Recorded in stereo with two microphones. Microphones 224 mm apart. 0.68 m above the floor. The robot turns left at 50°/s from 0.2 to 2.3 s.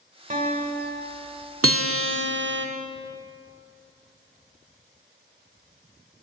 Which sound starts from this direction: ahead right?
A guitar, at 0.3 s.